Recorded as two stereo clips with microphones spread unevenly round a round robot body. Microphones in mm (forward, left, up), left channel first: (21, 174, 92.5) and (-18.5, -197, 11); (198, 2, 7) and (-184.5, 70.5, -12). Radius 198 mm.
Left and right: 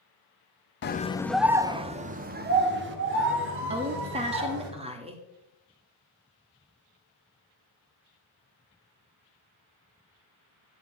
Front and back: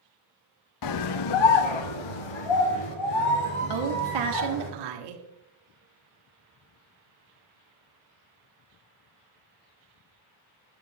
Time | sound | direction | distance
0.8 | a scream | 20° left | 0.7 m
3.7 | a woman speaking | 165° right | 1.7 m